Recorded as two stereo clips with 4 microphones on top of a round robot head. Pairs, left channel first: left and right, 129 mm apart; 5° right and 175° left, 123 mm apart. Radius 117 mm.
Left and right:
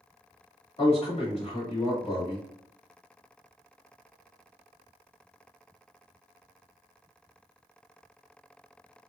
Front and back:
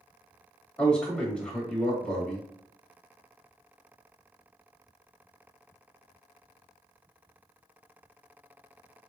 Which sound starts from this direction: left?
A man speaking, at 0.8 s.